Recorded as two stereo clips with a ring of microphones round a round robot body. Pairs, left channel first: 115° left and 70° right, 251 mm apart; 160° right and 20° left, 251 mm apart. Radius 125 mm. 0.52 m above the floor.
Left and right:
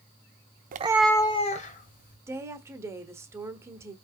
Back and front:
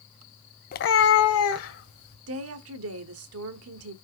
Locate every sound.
0.7 s a cat meowing: 110° right, 0.6 m; by 2.2 s 165° left, 2 m
2.3 s a woman speaking: 10° left, 1.2 m